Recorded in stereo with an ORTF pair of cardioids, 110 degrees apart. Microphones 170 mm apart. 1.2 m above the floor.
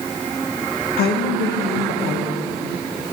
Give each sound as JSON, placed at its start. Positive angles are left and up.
{"t": 1.0, "sound": "a woman speaking", "azimuth_deg": 70, "distance_m": 1.2}